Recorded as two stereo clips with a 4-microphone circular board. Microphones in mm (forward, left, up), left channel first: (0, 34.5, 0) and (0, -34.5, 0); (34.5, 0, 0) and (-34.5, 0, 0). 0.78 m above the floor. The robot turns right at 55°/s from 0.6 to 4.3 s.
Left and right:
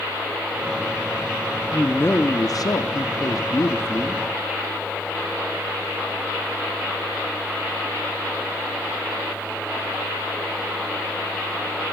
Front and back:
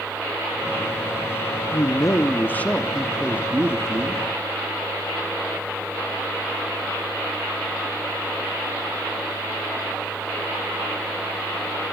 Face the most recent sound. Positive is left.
turn(degrees=160)